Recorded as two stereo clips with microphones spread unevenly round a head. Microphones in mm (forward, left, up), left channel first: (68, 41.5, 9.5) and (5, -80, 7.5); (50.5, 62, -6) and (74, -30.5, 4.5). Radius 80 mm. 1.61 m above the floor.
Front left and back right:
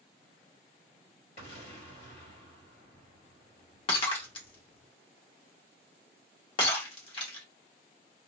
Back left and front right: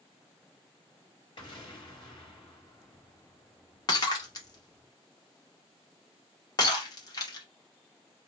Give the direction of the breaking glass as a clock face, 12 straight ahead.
9 o'clock.